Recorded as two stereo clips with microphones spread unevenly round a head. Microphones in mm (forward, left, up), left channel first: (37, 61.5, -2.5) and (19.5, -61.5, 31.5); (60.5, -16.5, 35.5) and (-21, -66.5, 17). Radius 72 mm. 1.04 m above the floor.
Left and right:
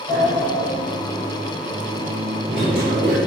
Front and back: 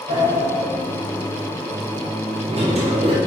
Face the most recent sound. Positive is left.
turn(degrees=-155)